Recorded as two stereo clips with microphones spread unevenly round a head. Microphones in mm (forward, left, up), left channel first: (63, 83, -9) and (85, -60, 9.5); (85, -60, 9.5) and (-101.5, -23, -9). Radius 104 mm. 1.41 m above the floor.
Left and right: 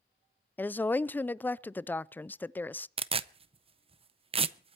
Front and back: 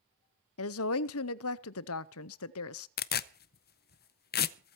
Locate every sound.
0.6 s a woman speaking: 20° left, 0.5 m
3.0 s tearing paper: 40° right, 0.6 m